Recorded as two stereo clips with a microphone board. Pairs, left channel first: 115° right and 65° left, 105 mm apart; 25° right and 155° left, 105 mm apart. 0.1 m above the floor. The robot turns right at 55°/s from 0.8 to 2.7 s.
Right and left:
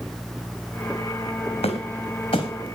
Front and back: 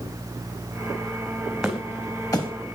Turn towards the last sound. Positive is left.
turn(degrees=-60)